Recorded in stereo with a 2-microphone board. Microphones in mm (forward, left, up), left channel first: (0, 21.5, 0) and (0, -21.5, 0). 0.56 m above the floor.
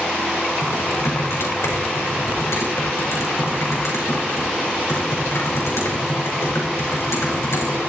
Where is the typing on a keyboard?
85° left, 5 m.